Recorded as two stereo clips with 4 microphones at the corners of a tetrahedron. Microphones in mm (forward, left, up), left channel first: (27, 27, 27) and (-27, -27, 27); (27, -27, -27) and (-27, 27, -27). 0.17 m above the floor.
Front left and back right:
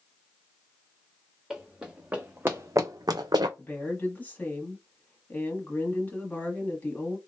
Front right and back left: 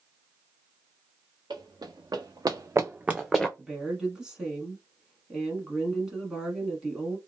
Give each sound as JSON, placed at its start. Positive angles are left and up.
{"t": 1.5, "sound": "running footsteps", "azimuth_deg": 140, "distance_m": 1.0}
{"t": 3.6, "sound": "a woman speaking", "azimuth_deg": 65, "distance_m": 1.1}